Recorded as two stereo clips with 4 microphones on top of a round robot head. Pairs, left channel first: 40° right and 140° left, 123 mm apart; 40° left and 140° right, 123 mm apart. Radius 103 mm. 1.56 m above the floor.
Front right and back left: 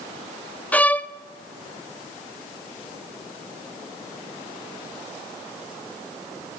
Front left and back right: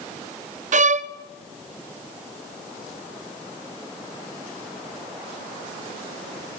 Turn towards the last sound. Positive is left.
turn(degrees=-120)